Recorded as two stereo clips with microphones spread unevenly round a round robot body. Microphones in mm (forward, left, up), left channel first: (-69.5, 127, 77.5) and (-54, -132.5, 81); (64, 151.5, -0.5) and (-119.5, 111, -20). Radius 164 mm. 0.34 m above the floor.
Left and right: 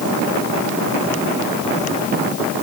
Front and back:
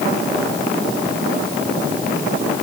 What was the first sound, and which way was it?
Only background noise.